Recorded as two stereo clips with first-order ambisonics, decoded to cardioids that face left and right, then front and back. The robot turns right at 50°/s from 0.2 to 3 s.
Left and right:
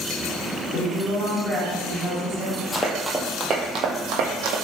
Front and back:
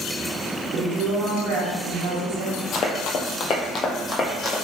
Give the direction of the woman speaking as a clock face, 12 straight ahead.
7 o'clock.